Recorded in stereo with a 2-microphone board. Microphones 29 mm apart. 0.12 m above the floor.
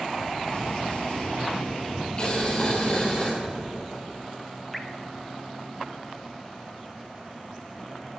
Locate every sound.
0.5 s an explosion: 40° left (ahead or behind), 3.5 m
2.2 s boiling: 35° left (ahead or behind), 3 m
4.7 s dripping: centre (ahead or behind), 0.7 m